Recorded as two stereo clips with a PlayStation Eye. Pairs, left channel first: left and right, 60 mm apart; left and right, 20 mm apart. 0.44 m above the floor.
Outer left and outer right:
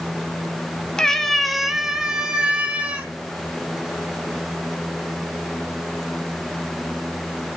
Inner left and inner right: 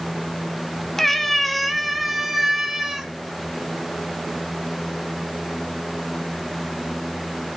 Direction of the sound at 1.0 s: 10° left (ahead or behind).